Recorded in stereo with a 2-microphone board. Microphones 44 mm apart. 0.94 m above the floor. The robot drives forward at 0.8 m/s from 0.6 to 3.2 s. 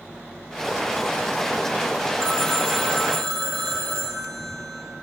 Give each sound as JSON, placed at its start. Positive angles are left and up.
{"t": 2.2, "sound": "a phone ringing", "side_deg": 15, "distance_m": 1.1}